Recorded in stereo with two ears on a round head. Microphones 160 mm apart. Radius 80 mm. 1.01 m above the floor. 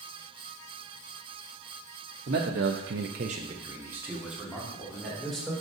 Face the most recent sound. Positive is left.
turn(degrees=0)  # may be behind; listen again after turning